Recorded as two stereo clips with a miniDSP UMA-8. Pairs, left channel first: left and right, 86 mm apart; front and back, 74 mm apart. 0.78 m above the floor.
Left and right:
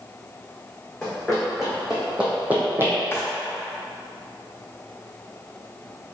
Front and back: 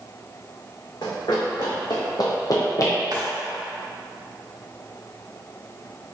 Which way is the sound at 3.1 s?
150° left.